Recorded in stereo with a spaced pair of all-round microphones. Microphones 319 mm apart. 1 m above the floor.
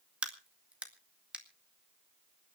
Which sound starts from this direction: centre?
A crack, at 0.2 s.